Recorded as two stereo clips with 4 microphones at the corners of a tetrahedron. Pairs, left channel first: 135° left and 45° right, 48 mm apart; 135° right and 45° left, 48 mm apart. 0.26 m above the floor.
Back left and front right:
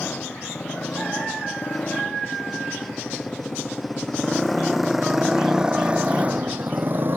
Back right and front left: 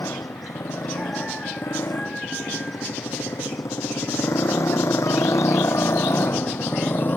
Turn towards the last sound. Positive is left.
turn(degrees=-85)